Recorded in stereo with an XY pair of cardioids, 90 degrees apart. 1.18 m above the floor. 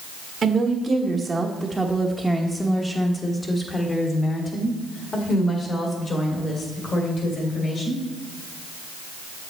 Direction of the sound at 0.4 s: 50° right.